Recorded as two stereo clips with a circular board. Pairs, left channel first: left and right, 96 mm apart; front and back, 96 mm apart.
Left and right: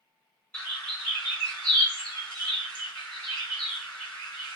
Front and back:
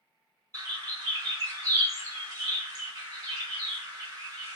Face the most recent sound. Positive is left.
turn(degrees=160)